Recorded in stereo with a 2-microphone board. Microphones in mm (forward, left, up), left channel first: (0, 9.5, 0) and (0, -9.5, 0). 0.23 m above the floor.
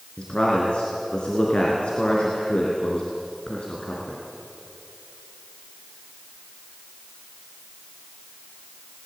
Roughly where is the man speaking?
Left.